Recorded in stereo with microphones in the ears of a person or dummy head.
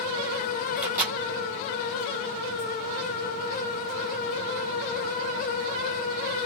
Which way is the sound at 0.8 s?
15° right (ahead or behind).